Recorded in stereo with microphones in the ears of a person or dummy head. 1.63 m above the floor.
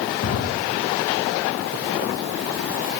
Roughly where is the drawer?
Left.